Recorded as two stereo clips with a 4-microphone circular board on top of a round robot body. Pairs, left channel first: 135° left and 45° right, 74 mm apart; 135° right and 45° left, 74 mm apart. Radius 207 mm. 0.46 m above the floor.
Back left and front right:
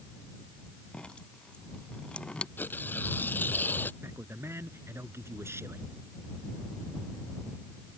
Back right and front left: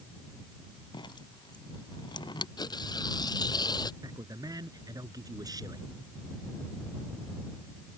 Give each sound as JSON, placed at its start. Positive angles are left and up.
{"t": 0.9, "sound": "dripping", "azimuth_deg": -150}
{"t": 2.6, "sound": "tearing paper", "azimuth_deg": -160}
{"t": 4.0, "sound": "a man speaking", "azimuth_deg": 10}